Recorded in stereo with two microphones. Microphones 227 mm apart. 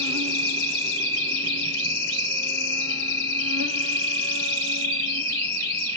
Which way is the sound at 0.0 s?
90° right.